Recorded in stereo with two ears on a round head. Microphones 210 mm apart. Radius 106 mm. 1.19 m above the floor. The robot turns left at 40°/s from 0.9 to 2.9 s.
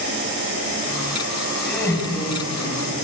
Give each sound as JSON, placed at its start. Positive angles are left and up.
{"t": 1.6, "sound": "laughter", "azimuth_deg": 180, "distance_m": 7.5}